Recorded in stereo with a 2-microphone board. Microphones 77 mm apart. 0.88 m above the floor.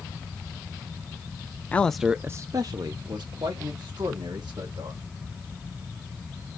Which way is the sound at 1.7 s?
20° left (ahead or behind).